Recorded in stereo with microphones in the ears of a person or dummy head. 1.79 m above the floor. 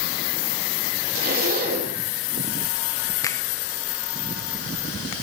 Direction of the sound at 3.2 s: 25° left (ahead or behind).